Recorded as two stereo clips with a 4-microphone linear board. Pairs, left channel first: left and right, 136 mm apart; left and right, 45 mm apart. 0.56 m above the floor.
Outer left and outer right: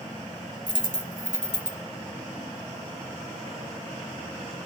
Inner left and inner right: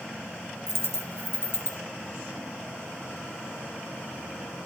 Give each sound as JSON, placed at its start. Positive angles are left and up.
{"t": 0.7, "sound": "a dropped coin", "side_deg": 70, "distance_m": 1.7}